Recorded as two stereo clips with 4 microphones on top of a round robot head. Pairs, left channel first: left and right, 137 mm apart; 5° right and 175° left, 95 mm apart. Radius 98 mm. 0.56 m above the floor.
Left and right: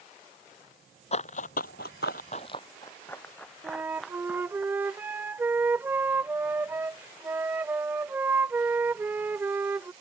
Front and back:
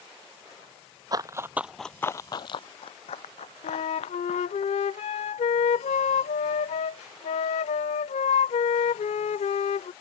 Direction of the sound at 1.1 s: 130° left.